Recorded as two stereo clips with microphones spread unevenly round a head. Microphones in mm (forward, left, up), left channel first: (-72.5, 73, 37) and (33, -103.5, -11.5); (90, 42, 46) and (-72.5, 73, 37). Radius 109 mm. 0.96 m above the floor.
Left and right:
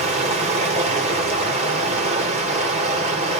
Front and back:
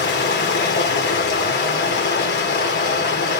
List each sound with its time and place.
0.0 s running water: straight ahead, 3 m